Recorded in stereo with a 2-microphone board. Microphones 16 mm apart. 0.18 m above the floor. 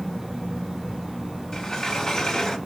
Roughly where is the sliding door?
Left.